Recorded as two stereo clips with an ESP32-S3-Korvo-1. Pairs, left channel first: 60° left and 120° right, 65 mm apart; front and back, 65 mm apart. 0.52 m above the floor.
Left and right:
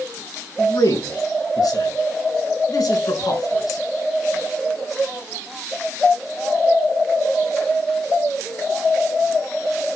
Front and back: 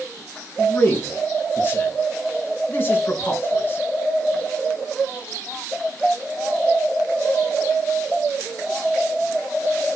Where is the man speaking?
55° left, 5 m.